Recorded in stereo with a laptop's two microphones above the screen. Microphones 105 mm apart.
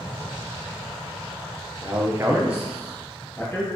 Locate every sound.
1.8 s a man speaking: 25° right (ahead or behind), 0.7 m; by 3.6 s 5° left (ahead or behind), 1.6 m